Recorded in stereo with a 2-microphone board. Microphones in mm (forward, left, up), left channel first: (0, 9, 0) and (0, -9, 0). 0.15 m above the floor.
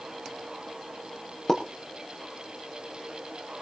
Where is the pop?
35° left (ahead or behind), 6 m.